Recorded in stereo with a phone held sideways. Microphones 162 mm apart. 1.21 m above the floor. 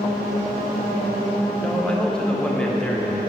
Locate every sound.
1.6 s a man speaking: 5° left (ahead or behind), 0.8 m